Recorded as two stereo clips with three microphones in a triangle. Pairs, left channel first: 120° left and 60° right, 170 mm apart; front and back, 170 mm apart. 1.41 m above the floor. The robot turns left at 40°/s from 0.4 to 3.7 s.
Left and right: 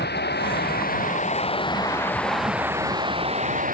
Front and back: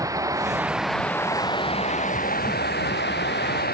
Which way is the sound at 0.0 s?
110° left.